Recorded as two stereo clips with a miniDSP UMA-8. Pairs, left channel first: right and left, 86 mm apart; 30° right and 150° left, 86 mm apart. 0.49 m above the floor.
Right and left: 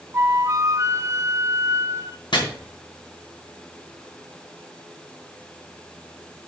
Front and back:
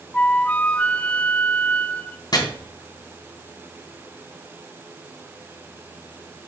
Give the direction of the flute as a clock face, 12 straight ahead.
11 o'clock.